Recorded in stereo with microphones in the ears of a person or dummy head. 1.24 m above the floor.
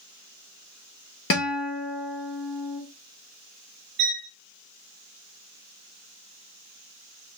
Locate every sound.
1.3 s a guitar: 50° left (ahead or behind), 0.9 m
4.0 s a violin: 50° right (ahead or behind), 0.7 m